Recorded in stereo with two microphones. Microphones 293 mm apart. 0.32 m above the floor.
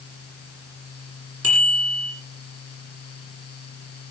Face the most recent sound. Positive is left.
turn(degrees=-50)  # may be behind; listen again after turning